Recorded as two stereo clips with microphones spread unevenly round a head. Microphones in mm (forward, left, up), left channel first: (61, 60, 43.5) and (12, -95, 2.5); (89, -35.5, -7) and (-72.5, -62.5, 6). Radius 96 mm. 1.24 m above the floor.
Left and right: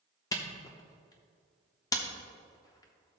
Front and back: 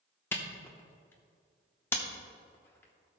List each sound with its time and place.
0.3 s a camera shutter: 85° left, 0.8 m